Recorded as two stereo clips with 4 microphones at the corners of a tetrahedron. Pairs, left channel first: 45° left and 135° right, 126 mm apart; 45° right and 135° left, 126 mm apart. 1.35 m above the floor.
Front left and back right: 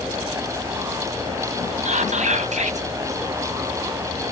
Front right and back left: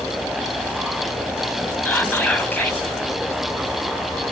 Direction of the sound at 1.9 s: 120° right.